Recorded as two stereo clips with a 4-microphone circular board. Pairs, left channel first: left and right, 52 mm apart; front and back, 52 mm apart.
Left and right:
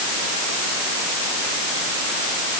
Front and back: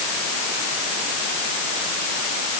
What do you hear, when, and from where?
Only background noise.